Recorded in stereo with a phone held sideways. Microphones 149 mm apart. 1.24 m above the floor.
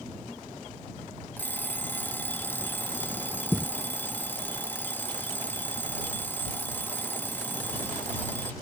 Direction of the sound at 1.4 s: 15° left (ahead or behind).